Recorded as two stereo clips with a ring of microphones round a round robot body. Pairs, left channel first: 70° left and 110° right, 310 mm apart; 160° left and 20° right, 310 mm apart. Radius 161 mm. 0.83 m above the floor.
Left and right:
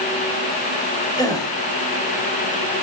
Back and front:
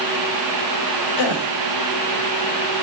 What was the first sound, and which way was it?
A gasp, 145° left.